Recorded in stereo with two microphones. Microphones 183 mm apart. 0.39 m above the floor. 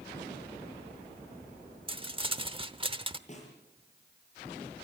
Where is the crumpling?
30° right (ahead or behind), 0.9 m.